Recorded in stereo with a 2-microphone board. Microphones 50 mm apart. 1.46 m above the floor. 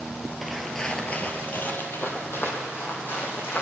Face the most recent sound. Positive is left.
turn(degrees=50)  # may be behind; listen again after turning